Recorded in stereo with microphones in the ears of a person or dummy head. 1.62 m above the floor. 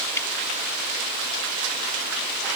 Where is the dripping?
15° left (ahead or behind).